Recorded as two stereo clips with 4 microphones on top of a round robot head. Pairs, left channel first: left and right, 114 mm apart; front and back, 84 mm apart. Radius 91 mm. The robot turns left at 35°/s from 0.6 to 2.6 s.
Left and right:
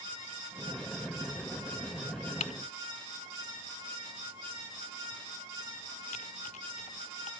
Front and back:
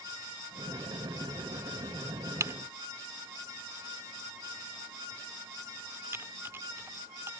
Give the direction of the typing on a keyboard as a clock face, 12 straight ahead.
7 o'clock.